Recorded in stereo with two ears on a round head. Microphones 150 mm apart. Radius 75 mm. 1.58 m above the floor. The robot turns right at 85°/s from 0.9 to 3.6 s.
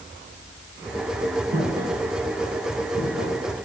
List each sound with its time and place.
1.5 s footsteps: 55° right (ahead or behind), 5 m; by 3.4 s 55° left (ahead or behind), 4 m